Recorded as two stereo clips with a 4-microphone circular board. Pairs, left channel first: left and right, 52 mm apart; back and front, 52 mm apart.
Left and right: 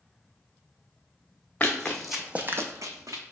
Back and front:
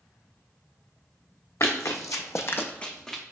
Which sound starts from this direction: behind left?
Running footsteps, at 1.6 s.